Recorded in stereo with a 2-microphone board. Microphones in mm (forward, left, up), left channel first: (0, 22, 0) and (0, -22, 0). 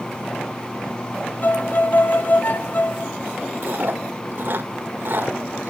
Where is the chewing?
50° right (ahead or behind), 2 m.